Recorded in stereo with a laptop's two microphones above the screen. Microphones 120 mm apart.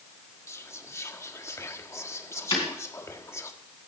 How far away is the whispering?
About 1.6 m.